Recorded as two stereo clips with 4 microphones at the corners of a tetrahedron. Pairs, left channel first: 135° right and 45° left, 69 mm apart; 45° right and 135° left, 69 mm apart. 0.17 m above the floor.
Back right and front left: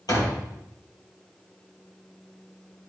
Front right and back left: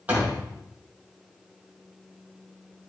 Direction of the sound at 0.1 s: 160° right.